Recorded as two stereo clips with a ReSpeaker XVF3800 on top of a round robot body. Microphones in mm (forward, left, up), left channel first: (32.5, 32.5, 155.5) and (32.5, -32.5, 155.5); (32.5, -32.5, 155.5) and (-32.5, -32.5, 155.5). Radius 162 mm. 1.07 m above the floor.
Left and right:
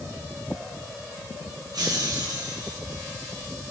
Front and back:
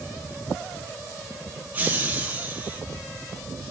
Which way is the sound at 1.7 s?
115° right.